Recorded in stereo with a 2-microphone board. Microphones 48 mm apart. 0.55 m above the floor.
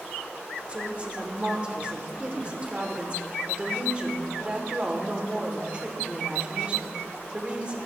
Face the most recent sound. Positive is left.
turn(degrees=-30)  # may be behind; listen again after turning